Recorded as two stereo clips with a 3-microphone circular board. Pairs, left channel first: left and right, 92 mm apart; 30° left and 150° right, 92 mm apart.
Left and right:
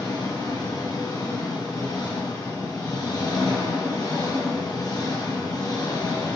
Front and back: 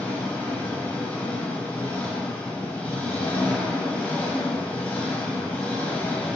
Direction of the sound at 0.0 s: 95° left.